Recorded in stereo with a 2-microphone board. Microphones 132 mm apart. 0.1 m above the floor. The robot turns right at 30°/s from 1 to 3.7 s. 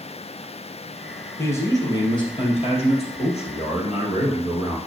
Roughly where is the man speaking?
Ahead left.